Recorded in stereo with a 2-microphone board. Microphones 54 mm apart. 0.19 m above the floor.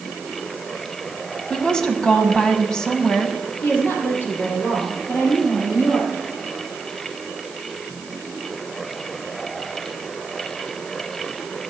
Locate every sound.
1.5 s a woman speaking: 15° left (ahead or behind), 1.4 m
3.6 s a woman speaking: 40° left (ahead or behind), 5 m